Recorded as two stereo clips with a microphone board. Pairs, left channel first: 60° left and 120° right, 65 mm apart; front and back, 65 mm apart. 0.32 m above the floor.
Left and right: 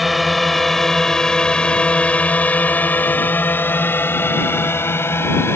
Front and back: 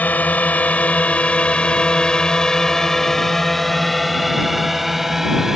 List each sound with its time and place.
0.0 s a drone: 30° right; by 5.6 s 100° left